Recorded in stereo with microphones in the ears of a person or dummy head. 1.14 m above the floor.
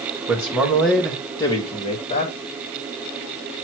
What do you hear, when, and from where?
0.3 s a man speaking: 15° right (ahead or behind), 1.6 m; by 2.3 s 35° left (ahead or behind), 2.0 m